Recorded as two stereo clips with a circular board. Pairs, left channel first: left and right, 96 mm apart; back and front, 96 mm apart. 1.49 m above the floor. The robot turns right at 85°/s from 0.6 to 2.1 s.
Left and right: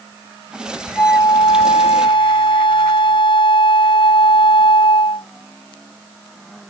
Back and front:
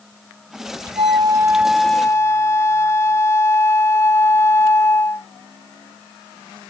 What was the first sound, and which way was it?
A flute, 20° left.